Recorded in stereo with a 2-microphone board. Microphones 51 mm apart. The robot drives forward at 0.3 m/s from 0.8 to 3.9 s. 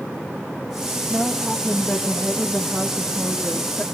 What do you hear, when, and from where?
1.1 s a woman speaking: 5° right (ahead or behind), 2.5 m